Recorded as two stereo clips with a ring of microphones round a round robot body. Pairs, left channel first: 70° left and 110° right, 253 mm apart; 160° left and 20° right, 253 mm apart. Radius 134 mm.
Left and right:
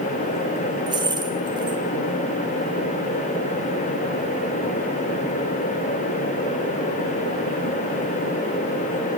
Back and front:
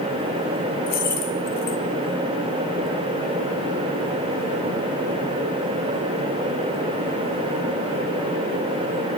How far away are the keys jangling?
About 2 m.